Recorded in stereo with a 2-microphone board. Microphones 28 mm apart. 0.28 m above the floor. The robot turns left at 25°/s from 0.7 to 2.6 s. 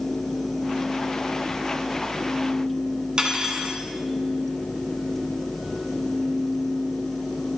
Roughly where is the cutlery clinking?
Right.